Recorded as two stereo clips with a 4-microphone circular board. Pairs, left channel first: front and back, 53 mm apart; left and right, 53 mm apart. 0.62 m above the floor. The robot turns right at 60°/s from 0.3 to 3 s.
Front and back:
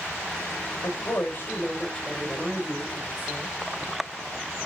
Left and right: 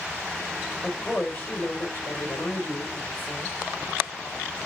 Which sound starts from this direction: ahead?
A woman speaking, at 0.8 s.